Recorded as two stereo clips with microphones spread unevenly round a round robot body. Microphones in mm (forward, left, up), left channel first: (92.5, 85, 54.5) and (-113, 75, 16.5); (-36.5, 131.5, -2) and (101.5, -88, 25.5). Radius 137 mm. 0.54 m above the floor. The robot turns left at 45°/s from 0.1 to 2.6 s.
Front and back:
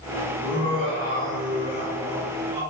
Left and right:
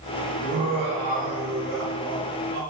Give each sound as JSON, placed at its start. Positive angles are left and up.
{"t": 0.4, "sound": "laughter", "azimuth_deg": -25, "distance_m": 1.5}